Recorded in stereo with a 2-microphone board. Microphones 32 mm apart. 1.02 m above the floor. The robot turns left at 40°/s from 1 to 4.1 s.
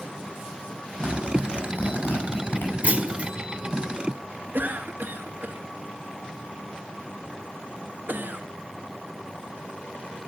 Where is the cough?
65° right (ahead or behind), 1.8 m.